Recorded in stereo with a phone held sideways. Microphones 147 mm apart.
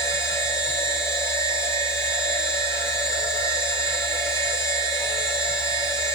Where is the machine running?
20° left (ahead or behind), 5.5 m.